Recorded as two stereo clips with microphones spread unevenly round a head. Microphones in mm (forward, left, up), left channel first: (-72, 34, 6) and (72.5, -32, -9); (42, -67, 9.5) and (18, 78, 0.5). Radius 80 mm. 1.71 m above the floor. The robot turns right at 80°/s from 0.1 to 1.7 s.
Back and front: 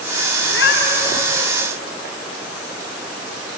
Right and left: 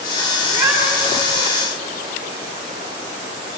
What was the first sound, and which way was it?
A cat meowing, 160° left.